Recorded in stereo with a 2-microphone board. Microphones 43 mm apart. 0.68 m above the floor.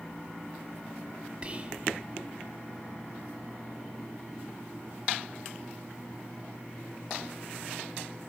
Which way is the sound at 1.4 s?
30° right (ahead or behind).